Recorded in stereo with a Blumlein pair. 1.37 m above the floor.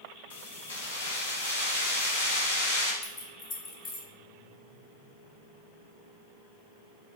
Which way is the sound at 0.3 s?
70° left.